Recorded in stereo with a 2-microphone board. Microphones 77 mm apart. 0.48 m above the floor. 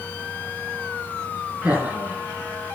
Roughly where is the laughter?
Right.